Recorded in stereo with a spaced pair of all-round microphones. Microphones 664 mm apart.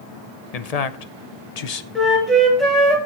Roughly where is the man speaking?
Left.